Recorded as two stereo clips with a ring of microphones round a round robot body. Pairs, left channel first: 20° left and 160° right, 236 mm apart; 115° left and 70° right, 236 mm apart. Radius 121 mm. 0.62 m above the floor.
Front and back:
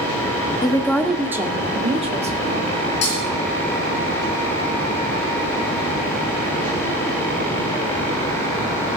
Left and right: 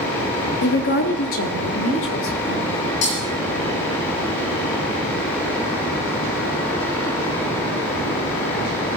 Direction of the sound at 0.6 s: 90° left.